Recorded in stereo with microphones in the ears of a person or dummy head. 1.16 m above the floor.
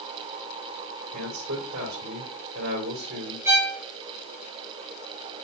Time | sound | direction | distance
1.1 | a man speaking | 75° right (ahead or behind) | 2.5 m
3.5 | a violin | 15° right (ahead or behind) | 1.3 m